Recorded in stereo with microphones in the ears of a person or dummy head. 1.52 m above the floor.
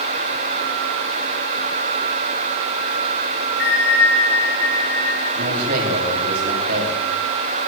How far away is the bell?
About 10 m.